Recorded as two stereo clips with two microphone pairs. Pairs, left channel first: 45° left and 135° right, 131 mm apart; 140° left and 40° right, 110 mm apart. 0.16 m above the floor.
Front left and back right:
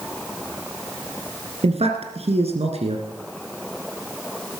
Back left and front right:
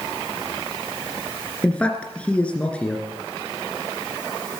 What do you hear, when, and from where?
1.6 s a man speaking: 140° right, 2 m